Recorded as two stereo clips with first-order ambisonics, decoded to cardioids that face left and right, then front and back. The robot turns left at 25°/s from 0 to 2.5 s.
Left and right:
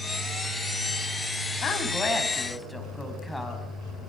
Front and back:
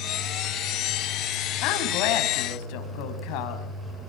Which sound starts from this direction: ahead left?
A woman speaking, at 1.6 s.